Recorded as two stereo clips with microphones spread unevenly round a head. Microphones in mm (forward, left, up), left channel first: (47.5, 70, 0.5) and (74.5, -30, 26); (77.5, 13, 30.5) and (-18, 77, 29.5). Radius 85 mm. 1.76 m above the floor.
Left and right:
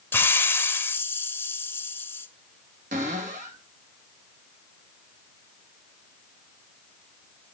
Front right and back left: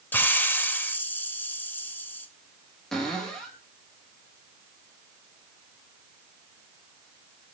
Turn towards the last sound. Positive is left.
turn(degrees=-120)